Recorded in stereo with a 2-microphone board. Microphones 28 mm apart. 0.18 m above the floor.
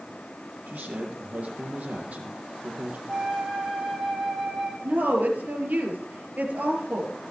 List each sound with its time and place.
0.7 s a man speaking: 60° right (ahead or behind), 3 m
3.1 s a flute: 10° right (ahead or behind), 7 m
4.8 s a woman speaking: 60° right (ahead or behind), 4.5 m